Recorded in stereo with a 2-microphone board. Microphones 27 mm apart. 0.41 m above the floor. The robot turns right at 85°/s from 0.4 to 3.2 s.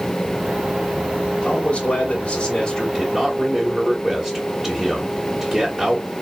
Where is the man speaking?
60° left, 1.5 m; by 6.0 s 150° right, 1.5 m.